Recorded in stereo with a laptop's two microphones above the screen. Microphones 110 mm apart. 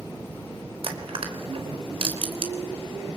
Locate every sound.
0.8 s crushing: 60° right (ahead or behind), 4 m